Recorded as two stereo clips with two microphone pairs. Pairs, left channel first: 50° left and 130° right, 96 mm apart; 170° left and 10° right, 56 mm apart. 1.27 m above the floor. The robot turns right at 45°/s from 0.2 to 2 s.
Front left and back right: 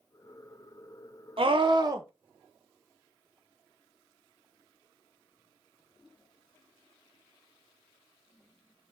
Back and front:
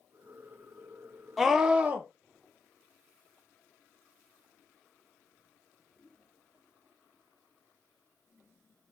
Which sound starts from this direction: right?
A scream, at 1.4 s.